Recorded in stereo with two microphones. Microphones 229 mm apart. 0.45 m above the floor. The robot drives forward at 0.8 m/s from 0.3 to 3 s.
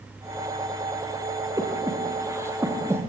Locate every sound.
1.6 s breathing: 15° right (ahead or behind), 2.5 m; by 3.0 s 10° right (ahead or behind), 3.5 m